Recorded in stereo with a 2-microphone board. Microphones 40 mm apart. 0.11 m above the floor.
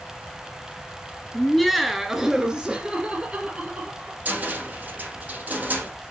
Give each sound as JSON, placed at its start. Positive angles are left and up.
{"t": 1.3, "sound": "laughter", "side_deg": 10, "distance_m": 1.5}
{"t": 4.2, "sound": "a cupboard door", "side_deg": -45, "distance_m": 3.0}